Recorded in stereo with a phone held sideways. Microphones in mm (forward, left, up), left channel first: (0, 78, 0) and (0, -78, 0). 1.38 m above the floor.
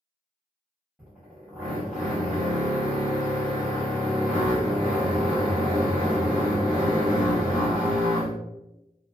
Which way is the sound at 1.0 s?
10° right (ahead or behind).